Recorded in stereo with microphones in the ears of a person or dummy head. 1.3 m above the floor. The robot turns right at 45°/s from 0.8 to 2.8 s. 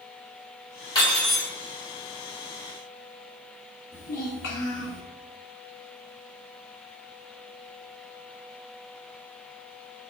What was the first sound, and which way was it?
Cutlery clinking, 20° left (ahead or behind).